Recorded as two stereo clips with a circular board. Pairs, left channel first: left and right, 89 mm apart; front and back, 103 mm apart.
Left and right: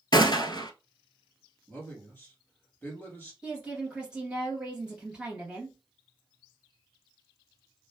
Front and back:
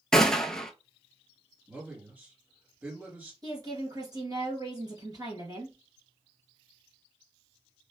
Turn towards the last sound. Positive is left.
turn(degrees=-165)